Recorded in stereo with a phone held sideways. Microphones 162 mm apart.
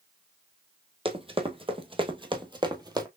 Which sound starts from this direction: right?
Running footsteps, at 1.1 s.